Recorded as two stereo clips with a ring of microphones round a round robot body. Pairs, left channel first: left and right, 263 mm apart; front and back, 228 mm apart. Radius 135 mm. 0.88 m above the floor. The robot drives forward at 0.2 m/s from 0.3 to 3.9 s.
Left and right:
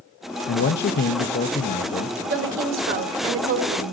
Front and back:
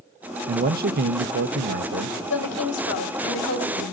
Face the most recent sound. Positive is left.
turn(degrees=-55)